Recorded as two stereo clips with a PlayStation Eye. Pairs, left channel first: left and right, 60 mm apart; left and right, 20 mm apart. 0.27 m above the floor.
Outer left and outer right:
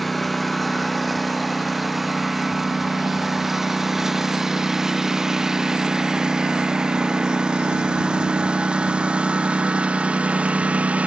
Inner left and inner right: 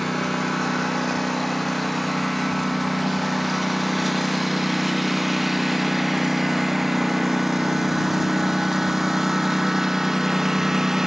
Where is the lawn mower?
Centre (ahead or behind); by 11.1 s 20° right (ahead or behind).